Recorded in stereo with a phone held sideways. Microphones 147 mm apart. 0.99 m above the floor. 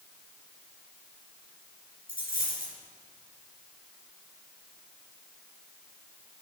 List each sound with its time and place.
2.1 s a dropped coin: 75° left (ahead or behind), 4.5 m